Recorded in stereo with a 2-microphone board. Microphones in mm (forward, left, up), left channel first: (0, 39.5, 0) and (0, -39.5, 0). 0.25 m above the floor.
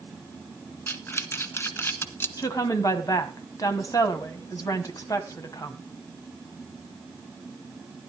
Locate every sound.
0.9 s breathing: 30° left (ahead or behind), 1.1 m
2.4 s a woman speaking: 50° left (ahead or behind), 1.8 m